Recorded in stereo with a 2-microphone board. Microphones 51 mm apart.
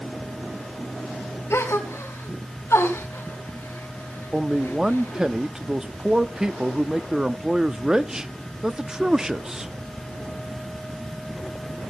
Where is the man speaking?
15° right (ahead or behind), 0.6 m.